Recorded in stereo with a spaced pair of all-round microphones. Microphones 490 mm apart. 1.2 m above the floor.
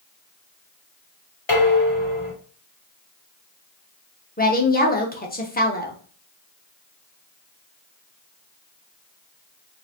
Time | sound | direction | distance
1.5 | dishes clattering | 65° left (ahead or behind) | 2 m
4.4 | a woman speaking | 20° left (ahead or behind) | 1.0 m